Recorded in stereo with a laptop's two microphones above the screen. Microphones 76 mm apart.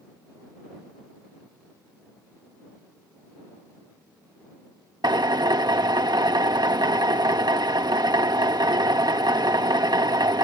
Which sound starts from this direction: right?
A drill, at 5.0 s.